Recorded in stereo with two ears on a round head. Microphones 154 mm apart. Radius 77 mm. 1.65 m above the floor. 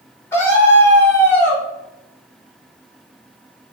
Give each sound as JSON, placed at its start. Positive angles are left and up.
{"t": 0.3, "sound": "a scream", "side_deg": 15, "distance_m": 4.0}